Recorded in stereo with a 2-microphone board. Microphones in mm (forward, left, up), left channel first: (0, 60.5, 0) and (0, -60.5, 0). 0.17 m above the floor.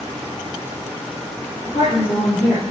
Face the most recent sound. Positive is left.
turn(degrees=40)  # may be behind; listen again after turning